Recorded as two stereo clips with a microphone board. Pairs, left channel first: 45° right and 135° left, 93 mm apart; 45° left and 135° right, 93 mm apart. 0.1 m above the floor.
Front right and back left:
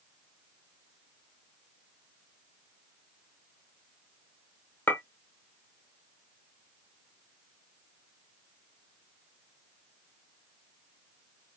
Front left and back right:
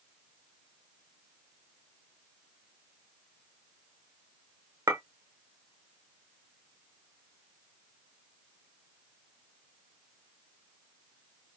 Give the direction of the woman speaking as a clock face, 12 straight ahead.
No woman speaking in this recording.